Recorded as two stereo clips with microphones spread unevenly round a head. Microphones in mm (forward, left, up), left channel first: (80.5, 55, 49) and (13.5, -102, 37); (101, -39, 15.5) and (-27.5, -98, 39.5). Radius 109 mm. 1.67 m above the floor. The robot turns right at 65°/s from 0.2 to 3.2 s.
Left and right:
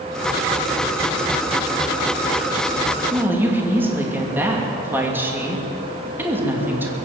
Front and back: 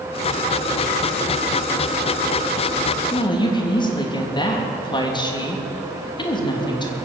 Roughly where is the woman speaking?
Ahead right.